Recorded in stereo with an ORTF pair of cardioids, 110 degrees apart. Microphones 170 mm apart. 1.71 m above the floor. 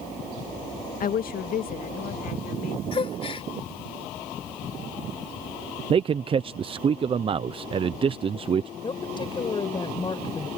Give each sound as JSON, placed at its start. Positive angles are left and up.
{"t": 1.0, "sound": "a woman speaking", "azimuth_deg": 55}
{"t": 2.9, "sound": "a gasp", "azimuth_deg": 35}
{"t": 5.9, "sound": "a man speaking", "azimuth_deg": -30}
{"t": 8.8, "sound": "a woman speaking", "azimuth_deg": 30}